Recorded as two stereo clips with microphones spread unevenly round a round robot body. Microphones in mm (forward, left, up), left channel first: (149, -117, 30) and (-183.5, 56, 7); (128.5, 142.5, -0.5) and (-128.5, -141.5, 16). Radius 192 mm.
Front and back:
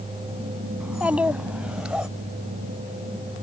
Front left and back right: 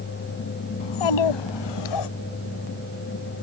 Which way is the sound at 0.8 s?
65° left.